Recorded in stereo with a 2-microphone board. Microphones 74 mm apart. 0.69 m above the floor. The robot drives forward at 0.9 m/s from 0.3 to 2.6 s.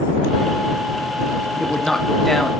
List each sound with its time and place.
1.6 s a man speaking: 5° left (ahead or behind), 0.8 m